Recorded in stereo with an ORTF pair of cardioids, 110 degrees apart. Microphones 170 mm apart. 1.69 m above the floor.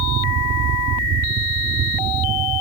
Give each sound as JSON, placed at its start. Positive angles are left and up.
{"t": 0.0, "sound": "a fan", "azimuth_deg": -70}